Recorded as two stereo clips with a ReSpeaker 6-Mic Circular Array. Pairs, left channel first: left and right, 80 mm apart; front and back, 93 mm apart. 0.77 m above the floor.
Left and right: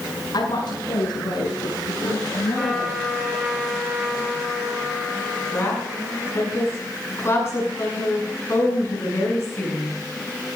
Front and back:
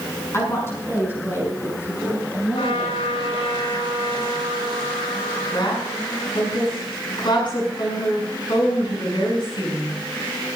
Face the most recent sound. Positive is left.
turn(degrees=35)